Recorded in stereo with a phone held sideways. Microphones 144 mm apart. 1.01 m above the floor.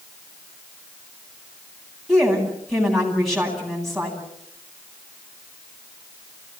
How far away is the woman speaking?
About 9.5 m.